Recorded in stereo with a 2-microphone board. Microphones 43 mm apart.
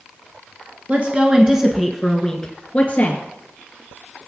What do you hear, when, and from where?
0.9 s a woman speaking: 35° right (ahead or behind), 1.7 m; by 3.2 s 35° left (ahead or behind), 2.5 m